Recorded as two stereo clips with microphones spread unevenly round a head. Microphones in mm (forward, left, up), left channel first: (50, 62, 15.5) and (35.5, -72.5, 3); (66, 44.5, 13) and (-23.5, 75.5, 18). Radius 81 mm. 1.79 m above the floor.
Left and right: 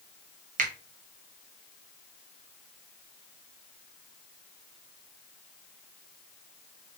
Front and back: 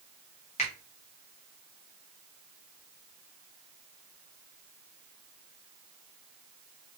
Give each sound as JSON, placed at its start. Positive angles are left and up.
{"t": 0.6, "sound": "a finger snap", "azimuth_deg": -70, "distance_m": 1.3}